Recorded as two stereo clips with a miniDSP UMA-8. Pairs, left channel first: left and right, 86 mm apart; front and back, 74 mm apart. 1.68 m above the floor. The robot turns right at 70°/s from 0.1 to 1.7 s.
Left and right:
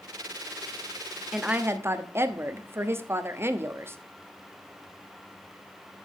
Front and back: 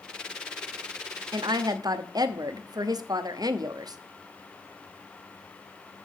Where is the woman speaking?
Straight behind, 0.7 m; by 4.0 s 150° right, 0.7 m.